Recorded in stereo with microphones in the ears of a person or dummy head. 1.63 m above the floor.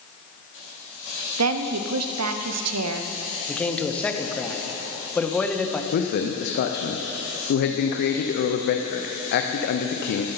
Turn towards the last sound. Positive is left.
turn(degrees=55)  # may be behind; listen again after turning